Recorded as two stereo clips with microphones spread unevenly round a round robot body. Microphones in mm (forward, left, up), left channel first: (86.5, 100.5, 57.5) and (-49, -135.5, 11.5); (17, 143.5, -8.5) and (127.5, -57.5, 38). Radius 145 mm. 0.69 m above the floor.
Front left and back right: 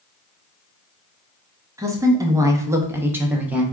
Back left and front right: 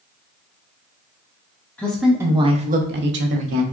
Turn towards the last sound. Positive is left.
turn(degrees=-45)